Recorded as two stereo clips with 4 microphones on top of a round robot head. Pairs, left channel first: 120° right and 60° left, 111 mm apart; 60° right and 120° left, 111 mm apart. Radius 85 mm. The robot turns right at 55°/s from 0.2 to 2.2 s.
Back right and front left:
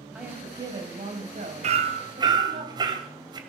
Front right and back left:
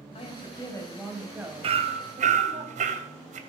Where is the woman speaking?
25° right, 3.5 m; by 2.6 s 85° left, 3.5 m.